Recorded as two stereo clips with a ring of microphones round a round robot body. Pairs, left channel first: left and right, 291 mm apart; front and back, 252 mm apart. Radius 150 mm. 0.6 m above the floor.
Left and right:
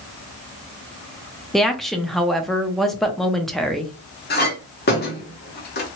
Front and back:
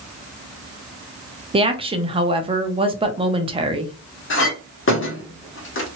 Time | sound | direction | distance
1.5 | a woman speaking | straight behind | 0.6 m
4.3 | a clink | 35° left | 1.1 m